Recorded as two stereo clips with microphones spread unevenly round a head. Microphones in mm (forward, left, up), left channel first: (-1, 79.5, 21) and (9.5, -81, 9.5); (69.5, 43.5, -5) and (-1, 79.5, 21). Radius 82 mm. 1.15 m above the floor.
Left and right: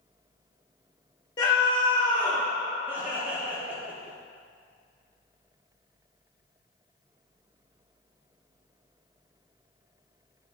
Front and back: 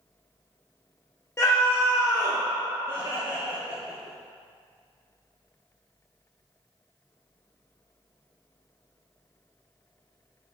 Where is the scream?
30° left, 0.7 m.